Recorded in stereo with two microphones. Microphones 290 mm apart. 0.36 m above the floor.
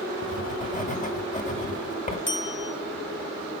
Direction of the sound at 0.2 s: 25° left (ahead or behind).